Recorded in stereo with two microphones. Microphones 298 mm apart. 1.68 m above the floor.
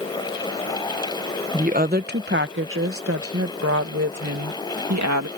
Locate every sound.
1.5 s a woman speaking: 25° right (ahead or behind); by 5.3 s 70° right (ahead or behind)